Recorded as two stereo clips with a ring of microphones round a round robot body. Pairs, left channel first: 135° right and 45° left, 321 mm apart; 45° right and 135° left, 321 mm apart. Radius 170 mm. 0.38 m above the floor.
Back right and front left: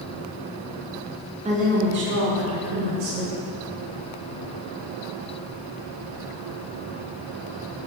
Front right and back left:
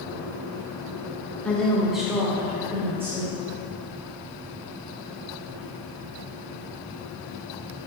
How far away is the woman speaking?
About 0.9 m.